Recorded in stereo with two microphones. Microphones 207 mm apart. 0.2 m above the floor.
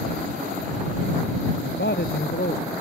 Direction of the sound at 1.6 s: 65° left (ahead or behind).